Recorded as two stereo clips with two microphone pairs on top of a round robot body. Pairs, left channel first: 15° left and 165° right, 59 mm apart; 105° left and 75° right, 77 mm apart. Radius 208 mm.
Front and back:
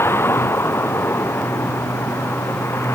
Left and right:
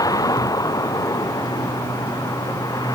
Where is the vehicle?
65° left; by 3.0 s 60° left.